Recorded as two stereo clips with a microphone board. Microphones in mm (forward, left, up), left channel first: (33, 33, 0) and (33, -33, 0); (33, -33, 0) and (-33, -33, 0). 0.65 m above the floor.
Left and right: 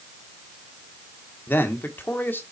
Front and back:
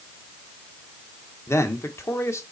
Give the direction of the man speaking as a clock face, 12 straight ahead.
11 o'clock.